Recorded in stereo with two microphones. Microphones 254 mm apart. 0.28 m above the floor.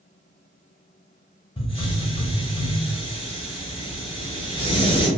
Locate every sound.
1.6 s a hiss: 20° left (ahead or behind), 0.8 m